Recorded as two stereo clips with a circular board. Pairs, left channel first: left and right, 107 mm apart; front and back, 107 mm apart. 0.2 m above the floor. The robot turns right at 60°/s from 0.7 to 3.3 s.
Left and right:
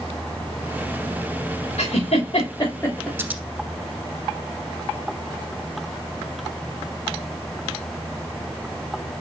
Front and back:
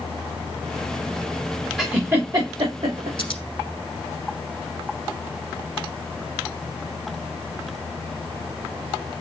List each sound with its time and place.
1.8 s a giggle: 90° left, 3 m; by 3.1 s 170° left, 3 m
3.2 s scissors: 25° right, 1.0 m; by 3.4 s 20° right, 1.0 m